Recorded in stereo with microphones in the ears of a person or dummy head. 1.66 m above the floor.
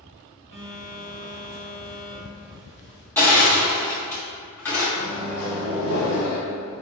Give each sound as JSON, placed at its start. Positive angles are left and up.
{"t": 0.5, "sound": "a phone buzzing", "side_deg": -45, "distance_m": 1.5}
{"t": 3.2, "sound": "crushing", "side_deg": 10, "distance_m": 1.1}
{"t": 5.0, "sound": "a microwave", "side_deg": 60, "distance_m": 1.3}